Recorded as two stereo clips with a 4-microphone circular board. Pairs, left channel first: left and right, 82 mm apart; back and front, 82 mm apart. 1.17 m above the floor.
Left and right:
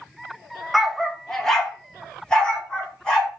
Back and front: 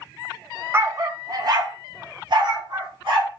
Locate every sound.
0.7 s a dog barking: straight ahead, 0.6 m; by 3.4 s 10° left, 2 m